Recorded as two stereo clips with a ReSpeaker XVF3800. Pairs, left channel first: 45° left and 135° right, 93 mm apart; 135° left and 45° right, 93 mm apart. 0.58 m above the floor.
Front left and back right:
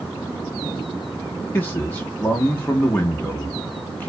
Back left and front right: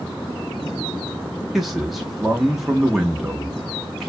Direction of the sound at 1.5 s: 40° left.